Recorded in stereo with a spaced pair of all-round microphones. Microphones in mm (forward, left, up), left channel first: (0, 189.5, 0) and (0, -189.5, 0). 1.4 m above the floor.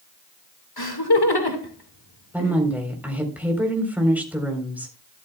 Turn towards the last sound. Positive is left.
turn(degrees=-5)  # may be behind; listen again after turning